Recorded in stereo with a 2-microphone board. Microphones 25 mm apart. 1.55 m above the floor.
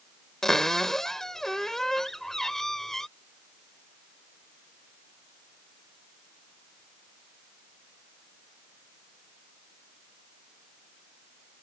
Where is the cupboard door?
15° left (ahead or behind).